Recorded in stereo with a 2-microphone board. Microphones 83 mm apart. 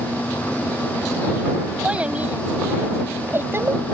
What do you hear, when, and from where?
1.8 s a child speaking: 15° right (ahead or behind); by 3.8 s 35° right (ahead or behind)